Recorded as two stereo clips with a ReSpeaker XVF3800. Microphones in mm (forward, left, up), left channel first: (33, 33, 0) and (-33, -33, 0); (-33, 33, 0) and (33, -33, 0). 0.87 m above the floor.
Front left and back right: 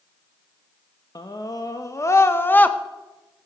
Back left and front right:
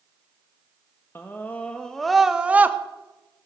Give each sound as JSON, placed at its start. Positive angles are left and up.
{"t": 1.1, "sound": "a scream", "azimuth_deg": 75, "distance_m": 1.1}